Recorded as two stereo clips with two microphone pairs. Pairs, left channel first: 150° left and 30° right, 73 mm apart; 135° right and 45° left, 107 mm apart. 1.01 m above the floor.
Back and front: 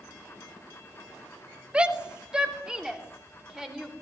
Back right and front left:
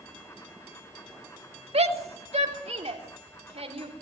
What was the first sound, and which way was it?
A shout, 45° left.